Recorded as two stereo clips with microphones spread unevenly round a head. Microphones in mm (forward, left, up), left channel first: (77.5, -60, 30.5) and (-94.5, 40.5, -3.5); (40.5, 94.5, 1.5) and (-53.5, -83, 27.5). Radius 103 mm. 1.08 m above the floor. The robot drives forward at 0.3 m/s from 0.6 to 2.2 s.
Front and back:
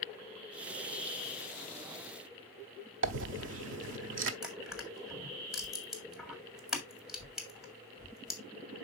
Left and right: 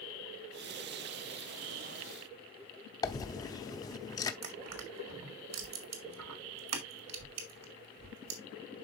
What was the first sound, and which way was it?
A dropped coin, 135° left.